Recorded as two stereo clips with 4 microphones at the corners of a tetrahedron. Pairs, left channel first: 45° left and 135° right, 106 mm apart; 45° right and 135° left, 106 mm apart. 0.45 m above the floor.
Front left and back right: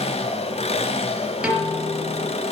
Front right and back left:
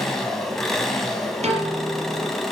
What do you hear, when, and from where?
0.0 s an engine running: 45° left, 2.5 m
1.4 s a piano: 145° left, 5 m